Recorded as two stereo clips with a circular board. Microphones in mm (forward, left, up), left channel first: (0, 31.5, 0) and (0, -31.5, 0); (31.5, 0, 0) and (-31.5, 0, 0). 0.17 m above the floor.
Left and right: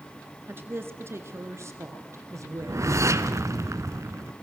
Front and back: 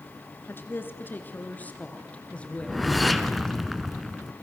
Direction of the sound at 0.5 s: 45° right.